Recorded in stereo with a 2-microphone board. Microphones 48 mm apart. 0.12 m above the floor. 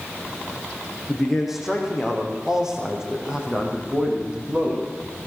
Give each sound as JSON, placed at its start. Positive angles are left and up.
{"t": 1.1, "sound": "a man speaking", "side_deg": 0, "distance_m": 6.0}